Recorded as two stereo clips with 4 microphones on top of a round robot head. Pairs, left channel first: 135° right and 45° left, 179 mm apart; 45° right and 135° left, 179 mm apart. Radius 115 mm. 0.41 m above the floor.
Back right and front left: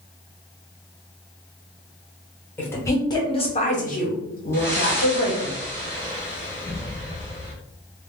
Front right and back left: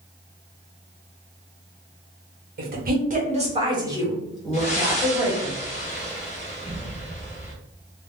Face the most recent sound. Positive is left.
turn(degrees=-70)